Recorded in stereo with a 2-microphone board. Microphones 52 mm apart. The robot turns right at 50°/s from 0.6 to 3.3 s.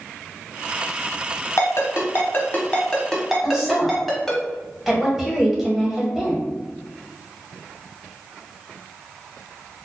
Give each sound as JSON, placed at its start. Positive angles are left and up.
{"t": 1.6, "sound": "a ringtone", "side_deg": 65, "distance_m": 1.0}
{"t": 3.4, "sound": "a woman speaking", "side_deg": 0, "distance_m": 1.7}